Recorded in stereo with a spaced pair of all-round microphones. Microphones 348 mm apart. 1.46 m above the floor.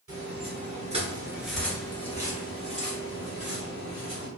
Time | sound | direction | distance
0.1 | footsteps | 40° right (ahead or behind) | 1.8 m